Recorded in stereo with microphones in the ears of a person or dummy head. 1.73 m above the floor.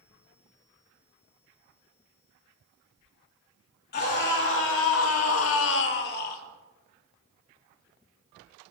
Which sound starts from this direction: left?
A scream, at 3.9 s.